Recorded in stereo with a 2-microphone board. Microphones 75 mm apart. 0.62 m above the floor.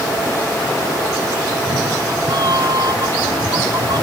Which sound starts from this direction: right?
A cat meowing, at 1.5 s.